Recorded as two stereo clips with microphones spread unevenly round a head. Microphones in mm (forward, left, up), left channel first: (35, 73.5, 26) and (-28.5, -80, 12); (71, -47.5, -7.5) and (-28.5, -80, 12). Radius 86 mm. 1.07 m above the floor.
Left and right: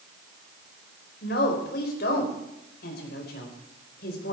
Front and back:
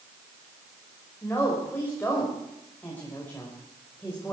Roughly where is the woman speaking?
Left.